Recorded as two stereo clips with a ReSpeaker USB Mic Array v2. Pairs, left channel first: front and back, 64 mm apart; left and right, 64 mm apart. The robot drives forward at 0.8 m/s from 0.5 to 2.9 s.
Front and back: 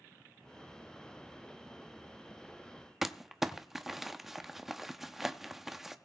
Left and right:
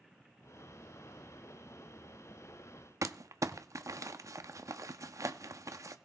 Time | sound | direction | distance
3.0 | crumpling | 95° right | 0.9 m